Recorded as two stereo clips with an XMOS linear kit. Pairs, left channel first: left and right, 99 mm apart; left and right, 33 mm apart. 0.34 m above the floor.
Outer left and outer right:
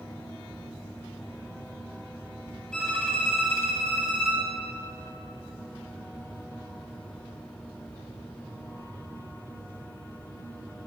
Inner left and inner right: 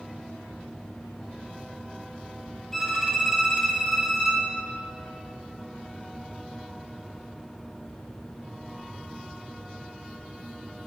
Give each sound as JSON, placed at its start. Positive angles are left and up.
{"t": 2.7, "sound": "a violin", "side_deg": 10, "distance_m": 2.5}